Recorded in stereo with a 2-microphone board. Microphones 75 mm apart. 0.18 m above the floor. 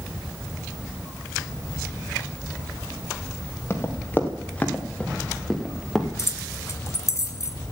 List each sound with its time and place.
3.7 s running footsteps: 30° left (ahead or behind), 2.5 m; by 6.1 s 5° right (ahead or behind), 2.5 m
6.2 s keys jangling: 40° left (ahead or behind), 1.3 m